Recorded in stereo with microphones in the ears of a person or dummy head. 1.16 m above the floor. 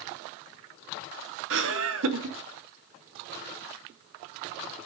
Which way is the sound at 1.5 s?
65° right (ahead or behind).